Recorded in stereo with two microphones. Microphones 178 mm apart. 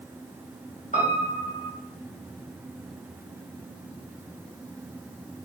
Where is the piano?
45° left (ahead or behind), 0.9 m.